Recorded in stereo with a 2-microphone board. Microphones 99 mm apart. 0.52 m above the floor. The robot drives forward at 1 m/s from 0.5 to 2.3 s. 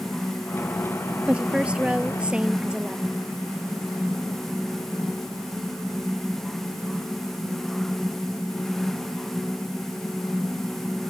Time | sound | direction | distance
1.3 | a woman speaking | 10° right (ahead or behind) | ?